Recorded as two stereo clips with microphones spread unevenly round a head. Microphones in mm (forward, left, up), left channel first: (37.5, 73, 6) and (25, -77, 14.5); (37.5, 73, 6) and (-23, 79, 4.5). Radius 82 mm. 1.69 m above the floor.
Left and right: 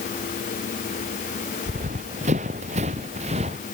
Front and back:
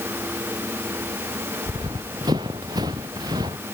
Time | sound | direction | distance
1.7 | running footsteps | 145° right | ?